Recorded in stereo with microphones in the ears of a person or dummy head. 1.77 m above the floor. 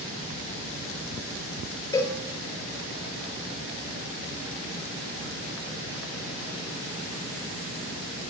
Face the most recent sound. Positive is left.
turn(degrees=20)  # may be behind; listen again after turning